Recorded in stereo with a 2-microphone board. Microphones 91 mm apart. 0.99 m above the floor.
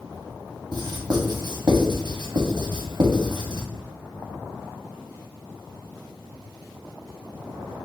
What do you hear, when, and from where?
0.7 s writing: 50° right (ahead or behind), 0.9 m